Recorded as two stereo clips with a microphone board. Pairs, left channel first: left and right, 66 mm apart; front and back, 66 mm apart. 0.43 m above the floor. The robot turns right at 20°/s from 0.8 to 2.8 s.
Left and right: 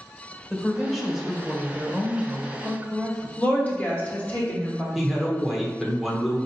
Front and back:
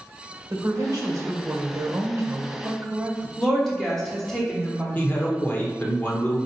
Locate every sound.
0.5 s a woman speaking: straight behind, 1.1 m; by 3.3 s 140° right, 1.1 m
3.4 s a woman speaking: 70° left, 1.3 m
5.0 s a man speaking: 10° right, 1.0 m